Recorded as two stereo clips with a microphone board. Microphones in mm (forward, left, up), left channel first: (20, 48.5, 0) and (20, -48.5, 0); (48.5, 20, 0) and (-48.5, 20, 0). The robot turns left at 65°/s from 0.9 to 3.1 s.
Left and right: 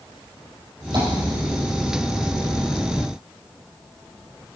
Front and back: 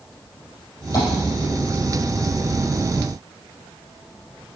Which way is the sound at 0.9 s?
55° right.